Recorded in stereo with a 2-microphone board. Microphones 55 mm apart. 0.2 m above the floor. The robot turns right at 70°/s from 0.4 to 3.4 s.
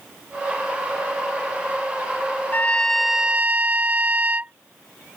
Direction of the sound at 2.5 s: 145° left.